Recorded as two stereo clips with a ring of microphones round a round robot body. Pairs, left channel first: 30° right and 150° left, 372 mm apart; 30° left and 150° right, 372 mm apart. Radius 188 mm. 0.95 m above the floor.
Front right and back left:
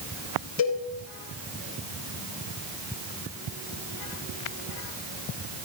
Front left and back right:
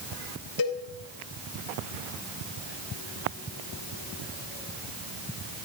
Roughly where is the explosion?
I don't hear an explosion.